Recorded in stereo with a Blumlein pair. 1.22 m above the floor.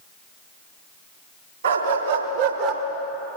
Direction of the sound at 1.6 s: 65° right.